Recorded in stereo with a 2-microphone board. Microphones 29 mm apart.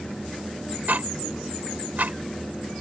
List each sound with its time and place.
0.9 s ticking: 70° right (ahead or behind)